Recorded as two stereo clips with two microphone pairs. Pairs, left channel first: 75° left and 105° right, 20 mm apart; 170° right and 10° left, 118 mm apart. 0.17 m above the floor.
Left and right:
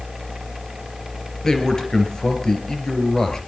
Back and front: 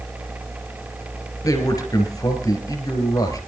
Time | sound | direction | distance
1.4 | a man speaking | 140° left | 3.5 m